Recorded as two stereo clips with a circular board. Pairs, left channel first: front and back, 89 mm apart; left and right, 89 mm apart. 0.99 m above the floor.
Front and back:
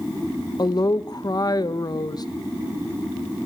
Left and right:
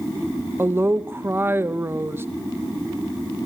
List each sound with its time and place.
0.6 s a woman speaking: 30° right, 0.8 m